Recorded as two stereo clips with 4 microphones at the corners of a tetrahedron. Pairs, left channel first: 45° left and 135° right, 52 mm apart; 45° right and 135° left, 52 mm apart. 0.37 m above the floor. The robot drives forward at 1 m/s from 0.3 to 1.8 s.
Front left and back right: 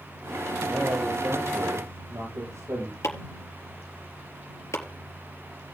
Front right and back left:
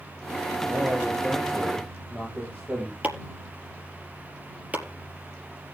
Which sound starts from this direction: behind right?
A man speaking, at 0.7 s.